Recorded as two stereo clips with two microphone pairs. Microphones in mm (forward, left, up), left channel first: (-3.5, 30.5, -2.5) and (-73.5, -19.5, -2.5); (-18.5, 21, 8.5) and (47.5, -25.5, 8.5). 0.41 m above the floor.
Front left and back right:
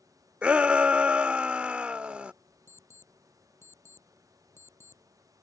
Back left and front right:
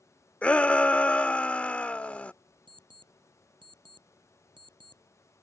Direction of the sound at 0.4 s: Straight behind.